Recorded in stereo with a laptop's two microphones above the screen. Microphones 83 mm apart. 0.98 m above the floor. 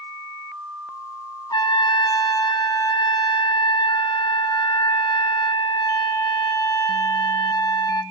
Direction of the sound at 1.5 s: 55° left (ahead or behind).